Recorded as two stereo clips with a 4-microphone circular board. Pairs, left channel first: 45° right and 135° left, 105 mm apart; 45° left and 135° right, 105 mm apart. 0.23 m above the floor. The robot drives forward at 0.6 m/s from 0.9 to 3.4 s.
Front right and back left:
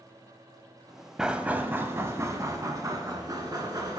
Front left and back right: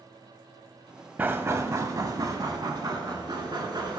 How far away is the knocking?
About 0.7 m.